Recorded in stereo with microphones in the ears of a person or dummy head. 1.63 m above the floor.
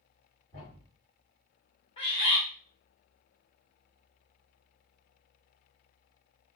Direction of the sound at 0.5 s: 40° left (ahead or behind).